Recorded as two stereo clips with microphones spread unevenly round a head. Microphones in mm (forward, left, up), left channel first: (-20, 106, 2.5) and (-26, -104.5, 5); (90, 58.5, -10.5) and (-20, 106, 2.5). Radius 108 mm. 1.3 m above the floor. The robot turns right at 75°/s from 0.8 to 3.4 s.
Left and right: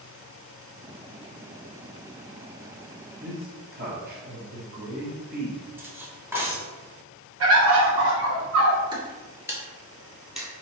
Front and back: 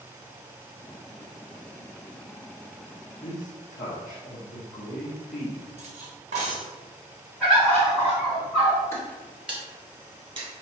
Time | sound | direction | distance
3.2 | a man speaking | 55° right | 0.9 m
5.8 | cutlery clinking | 170° right | 0.9 m
7.4 | a bird | 110° right | 1.2 m
8.9 | footsteps | 75° right | 1.3 m